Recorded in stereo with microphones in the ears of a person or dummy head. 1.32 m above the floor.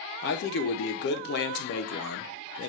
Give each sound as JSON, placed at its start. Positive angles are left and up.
{"t": 0.2, "sound": "a man speaking", "side_deg": 60, "distance_m": 0.9}